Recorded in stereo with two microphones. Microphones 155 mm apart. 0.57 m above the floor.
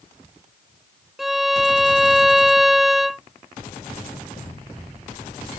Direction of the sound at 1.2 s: Centre (ahead or behind).